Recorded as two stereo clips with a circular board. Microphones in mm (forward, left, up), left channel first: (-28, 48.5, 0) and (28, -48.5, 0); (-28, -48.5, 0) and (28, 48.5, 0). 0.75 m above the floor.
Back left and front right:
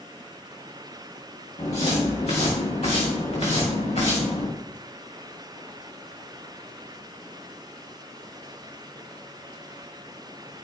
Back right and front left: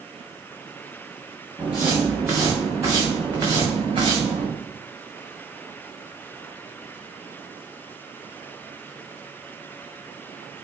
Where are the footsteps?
135° left, 3 m; by 4.5 s 105° left, 3.5 m.